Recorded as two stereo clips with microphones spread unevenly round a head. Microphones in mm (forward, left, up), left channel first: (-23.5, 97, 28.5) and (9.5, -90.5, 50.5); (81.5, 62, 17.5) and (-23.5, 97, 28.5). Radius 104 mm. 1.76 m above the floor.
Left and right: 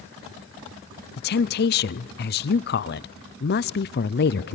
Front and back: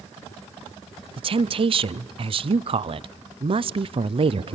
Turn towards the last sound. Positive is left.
turn(degrees=140)